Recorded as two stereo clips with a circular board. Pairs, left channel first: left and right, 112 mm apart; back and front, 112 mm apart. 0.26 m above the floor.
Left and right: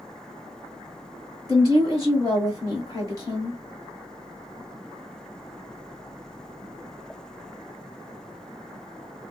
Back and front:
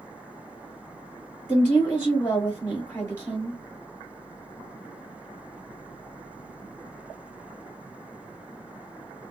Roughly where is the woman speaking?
Behind left.